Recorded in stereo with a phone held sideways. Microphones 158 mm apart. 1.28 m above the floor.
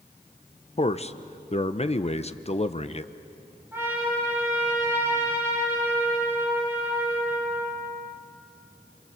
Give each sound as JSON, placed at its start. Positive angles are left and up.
{"t": 0.8, "sound": "a man speaking", "side_deg": 45, "distance_m": 0.8}
{"t": 3.7, "sound": "a trumpet", "side_deg": -15, "distance_m": 9.0}